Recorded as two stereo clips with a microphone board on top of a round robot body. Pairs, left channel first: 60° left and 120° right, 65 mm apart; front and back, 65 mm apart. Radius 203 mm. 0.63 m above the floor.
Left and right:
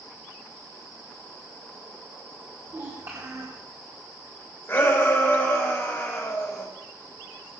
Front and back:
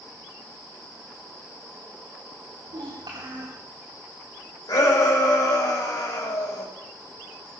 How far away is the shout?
About 6.5 m.